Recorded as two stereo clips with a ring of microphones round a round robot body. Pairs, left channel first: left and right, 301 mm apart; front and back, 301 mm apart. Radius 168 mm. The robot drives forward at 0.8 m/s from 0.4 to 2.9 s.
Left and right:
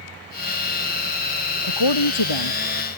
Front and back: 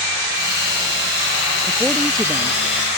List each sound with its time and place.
1.6 s a woman speaking: 90° left